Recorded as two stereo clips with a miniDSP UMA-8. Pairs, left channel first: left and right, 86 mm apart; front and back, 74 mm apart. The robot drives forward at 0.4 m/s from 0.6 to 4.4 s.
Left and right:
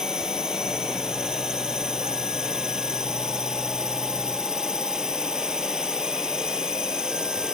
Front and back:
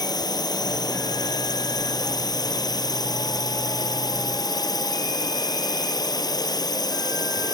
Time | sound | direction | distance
0.0 | a drone | 10° right | ?